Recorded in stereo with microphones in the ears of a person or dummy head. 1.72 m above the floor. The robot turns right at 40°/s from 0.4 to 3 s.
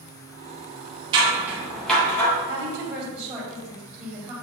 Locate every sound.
1.1 s scissors: 25° right (ahead or behind), 1.8 m; by 2.3 s 20° left (ahead or behind), 1.8 m
2.5 s a woman speaking: 25° right (ahead or behind), 2.5 m; by 4.3 s centre (ahead or behind), 2.5 m